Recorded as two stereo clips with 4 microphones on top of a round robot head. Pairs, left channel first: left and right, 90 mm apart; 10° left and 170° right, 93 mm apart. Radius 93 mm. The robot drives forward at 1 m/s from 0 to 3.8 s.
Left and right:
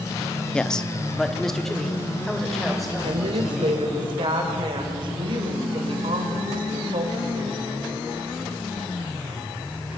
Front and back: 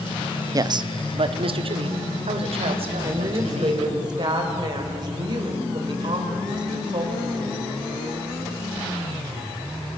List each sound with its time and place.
0.5 s a man speaking: 165° left, 0.6 m; by 4.0 s straight behind, 3.5 m
3.0 s a woman speaking: 110° right, 2.5 m; by 7.7 s 125° right, 3 m